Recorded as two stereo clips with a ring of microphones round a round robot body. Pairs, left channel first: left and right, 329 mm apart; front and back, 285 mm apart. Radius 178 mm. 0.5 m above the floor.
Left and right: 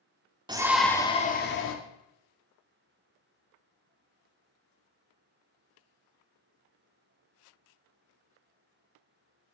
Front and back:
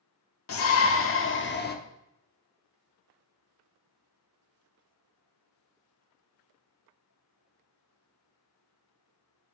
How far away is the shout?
About 1.1 m.